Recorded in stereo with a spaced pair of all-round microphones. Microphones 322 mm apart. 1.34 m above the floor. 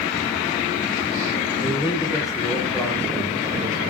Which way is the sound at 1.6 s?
20° left (ahead or behind).